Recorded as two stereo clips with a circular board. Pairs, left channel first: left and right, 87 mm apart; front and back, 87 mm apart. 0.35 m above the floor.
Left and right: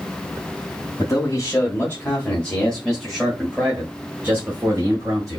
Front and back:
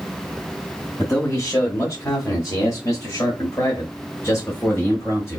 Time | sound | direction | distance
1.0 | a man speaking | 50° left | 1.9 m